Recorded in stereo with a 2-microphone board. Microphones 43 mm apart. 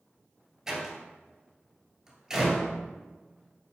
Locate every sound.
0.7 s a door slam: 10° right (ahead or behind), 1.8 m